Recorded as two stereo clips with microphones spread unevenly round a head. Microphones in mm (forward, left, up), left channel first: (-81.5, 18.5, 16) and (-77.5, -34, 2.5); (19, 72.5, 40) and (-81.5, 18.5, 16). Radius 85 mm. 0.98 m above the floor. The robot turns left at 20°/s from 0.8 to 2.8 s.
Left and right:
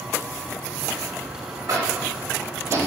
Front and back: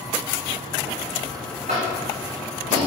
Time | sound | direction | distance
1.7 | tapping | 100° right | 1.0 m